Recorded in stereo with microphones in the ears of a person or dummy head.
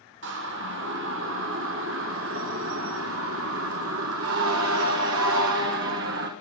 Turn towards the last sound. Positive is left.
turn(degrees=-65)  # may be behind; listen again after turning